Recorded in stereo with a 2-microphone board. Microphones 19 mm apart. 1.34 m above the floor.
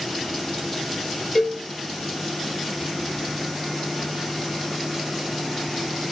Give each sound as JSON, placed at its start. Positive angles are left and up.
{"t": 1.4, "sound": "a cowbell", "side_deg": 5, "distance_m": 5.5}